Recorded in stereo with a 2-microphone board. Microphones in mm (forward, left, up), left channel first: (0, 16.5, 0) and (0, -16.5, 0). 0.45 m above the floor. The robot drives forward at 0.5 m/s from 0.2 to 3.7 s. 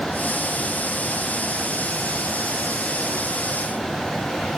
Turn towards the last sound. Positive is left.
No sound to turn to.